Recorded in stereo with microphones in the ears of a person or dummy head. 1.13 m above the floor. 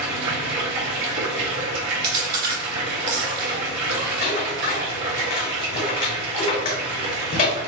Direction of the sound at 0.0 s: 60° right (ahead or behind).